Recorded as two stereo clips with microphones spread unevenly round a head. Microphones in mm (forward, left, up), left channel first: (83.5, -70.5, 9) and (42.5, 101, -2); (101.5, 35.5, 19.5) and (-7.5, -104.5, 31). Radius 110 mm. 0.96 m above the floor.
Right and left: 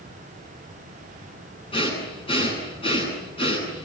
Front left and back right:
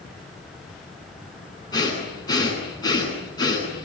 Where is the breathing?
15° right, 10 m.